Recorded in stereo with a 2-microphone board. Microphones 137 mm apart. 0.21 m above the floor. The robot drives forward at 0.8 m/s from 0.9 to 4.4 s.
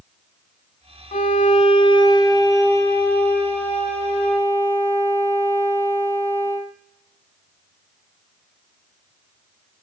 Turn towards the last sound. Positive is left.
turn(degrees=10)  # may be behind; listen again after turning